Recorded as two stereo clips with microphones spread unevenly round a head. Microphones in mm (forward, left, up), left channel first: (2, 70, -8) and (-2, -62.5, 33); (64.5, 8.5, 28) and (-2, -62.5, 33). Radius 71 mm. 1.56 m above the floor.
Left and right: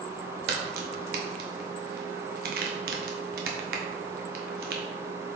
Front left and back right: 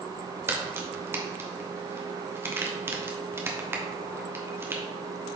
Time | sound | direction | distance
0.5 | a crack | 70° right | 1.4 m